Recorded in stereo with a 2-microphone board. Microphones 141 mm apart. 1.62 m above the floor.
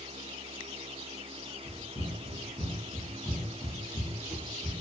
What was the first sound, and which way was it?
Running footsteps, 35° left (ahead or behind).